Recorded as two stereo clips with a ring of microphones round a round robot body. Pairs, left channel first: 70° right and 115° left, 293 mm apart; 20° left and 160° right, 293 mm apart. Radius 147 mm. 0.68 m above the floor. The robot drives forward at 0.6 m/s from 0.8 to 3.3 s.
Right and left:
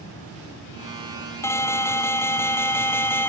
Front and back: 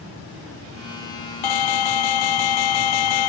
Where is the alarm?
15° left.